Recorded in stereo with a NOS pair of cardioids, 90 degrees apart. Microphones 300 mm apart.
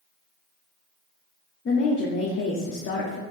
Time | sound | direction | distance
1.6 | a woman speaking | 45° left | 1.0 m